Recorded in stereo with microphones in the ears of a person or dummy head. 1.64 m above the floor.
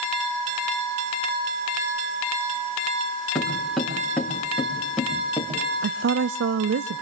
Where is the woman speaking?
70° right (ahead or behind), 0.5 m.